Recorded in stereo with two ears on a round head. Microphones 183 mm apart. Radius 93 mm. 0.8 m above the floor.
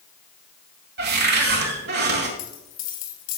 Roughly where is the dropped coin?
Left.